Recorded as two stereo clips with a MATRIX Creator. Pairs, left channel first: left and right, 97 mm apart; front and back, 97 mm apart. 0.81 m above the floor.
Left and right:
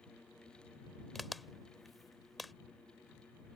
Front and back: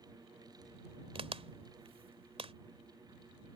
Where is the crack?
Straight behind.